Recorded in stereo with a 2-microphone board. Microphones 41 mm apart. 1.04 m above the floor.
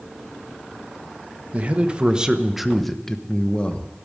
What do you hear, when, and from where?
1.5 s a man speaking: 35° right (ahead or behind), 1.1 m; by 3.9 s 35° left (ahead or behind), 1.0 m